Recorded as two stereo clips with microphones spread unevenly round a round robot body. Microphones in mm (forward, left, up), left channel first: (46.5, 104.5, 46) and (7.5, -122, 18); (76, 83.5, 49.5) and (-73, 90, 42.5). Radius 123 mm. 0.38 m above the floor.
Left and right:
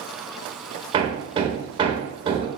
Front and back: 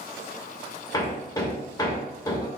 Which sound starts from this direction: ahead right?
Hammering, at 0.9 s.